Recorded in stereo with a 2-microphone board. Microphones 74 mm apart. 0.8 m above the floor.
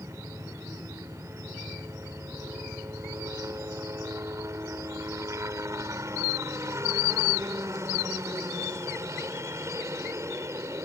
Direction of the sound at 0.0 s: 40° right (ahead or behind).